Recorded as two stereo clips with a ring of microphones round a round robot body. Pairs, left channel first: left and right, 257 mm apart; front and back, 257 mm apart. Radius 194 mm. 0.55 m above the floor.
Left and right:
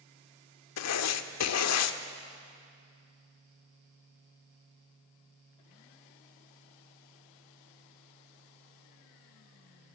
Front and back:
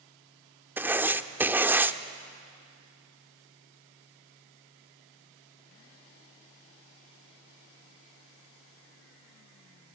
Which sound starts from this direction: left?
Writing, at 0.8 s.